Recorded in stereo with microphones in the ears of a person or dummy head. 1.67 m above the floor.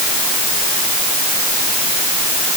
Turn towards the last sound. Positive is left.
No sound to turn to.